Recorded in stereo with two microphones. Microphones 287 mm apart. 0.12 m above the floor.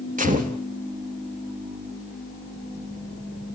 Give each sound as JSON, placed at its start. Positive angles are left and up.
{"t": 0.2, "sound": "a gunshot", "side_deg": -25, "distance_m": 3.0}